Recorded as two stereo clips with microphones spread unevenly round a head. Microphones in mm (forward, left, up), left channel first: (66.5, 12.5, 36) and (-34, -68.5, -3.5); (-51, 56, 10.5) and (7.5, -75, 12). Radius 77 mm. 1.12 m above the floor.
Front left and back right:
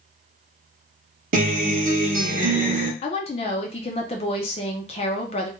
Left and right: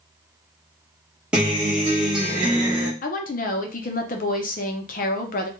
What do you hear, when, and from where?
1.3 s a guitar: 145° right, 0.8 m
3.0 s a woman speaking: 95° left, 0.5 m